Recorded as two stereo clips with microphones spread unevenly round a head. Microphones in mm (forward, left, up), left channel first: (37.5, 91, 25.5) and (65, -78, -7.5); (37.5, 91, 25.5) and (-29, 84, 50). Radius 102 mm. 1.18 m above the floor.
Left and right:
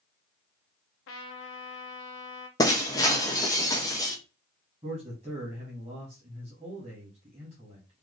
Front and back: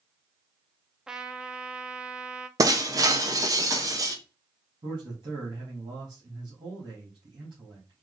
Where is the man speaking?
145° right, 1.6 m.